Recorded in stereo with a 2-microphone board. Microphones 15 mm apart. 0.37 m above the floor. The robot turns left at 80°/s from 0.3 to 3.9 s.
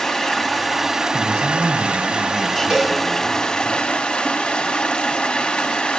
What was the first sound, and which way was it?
Running water, 35° left.